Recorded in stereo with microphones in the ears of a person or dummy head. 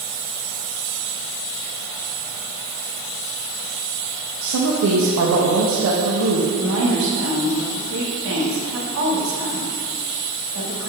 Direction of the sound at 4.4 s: 80° right.